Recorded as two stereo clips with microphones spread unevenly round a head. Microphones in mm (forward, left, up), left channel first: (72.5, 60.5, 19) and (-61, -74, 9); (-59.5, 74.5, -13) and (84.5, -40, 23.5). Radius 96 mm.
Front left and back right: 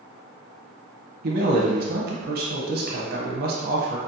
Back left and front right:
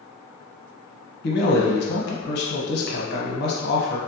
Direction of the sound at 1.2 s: 175° right.